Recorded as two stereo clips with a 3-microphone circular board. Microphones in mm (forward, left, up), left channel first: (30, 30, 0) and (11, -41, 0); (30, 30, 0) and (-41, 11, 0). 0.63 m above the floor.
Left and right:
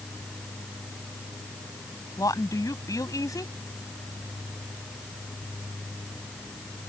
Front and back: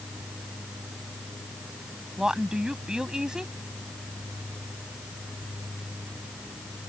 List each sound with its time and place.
2.2 s a woman speaking: 115° left